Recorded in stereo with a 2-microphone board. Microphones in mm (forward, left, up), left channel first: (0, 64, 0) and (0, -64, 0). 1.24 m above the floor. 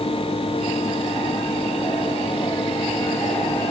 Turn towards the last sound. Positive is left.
No sound to turn to.